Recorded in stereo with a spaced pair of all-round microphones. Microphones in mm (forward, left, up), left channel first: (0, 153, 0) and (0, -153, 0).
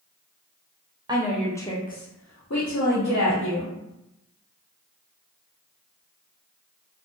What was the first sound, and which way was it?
A woman speaking, 15° right (ahead or behind).